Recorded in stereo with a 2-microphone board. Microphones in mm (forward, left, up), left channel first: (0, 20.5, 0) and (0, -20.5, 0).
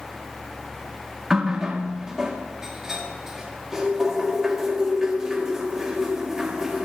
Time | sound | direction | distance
1.3 | a running tap | 10° right (ahead or behind) | 2 m